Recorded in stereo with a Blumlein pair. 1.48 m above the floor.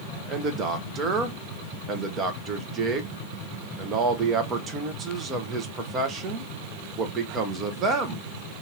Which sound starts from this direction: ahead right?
A man speaking, at 0.3 s.